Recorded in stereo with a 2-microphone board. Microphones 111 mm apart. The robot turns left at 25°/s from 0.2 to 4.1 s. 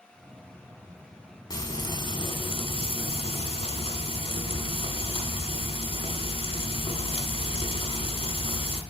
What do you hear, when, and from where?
1.5 s frying: 135° left, 1.1 m; by 8.8 s 70° left, 1.1 m